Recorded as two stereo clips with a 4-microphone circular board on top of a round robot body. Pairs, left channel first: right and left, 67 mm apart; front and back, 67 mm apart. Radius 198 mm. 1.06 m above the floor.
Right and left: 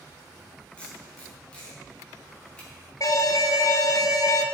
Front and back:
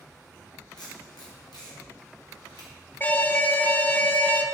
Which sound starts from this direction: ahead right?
An alarm, at 3.0 s.